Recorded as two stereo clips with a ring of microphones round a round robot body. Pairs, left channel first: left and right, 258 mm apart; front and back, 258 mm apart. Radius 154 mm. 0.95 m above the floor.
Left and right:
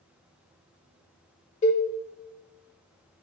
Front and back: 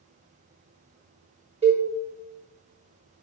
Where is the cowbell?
130° left, 0.7 m.